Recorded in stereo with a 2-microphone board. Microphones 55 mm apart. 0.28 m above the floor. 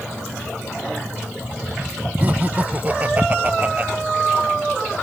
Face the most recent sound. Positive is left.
turn(degrees=-30)  # may be behind; listen again after turning